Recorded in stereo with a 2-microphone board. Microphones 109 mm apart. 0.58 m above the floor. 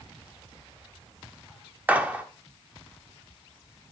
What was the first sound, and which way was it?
A gunshot, 15° right (ahead or behind).